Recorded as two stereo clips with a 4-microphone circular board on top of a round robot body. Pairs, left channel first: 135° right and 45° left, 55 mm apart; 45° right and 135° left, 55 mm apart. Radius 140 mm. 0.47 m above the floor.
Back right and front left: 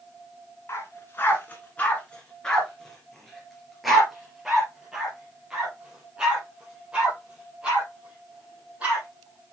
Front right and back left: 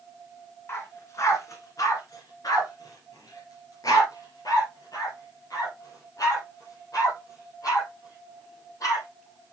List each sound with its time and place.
0.7 s a dog barking: 90° right, 1.9 m; by 9.0 s 25° right, 6 m